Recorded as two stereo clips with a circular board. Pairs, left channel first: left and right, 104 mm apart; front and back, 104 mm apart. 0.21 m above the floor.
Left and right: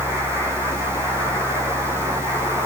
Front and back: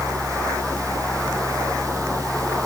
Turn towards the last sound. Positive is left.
No sound to turn to.